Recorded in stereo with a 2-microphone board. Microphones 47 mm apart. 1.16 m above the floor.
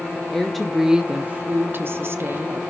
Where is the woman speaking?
10° left (ahead or behind), 1.0 m; by 2.6 s 50° right (ahead or behind), 1.4 m.